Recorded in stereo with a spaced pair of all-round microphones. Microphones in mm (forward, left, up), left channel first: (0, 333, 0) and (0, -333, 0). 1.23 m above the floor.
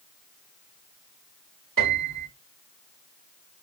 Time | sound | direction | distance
1.8 | a piano | 30° right (ahead or behind) | 1.4 m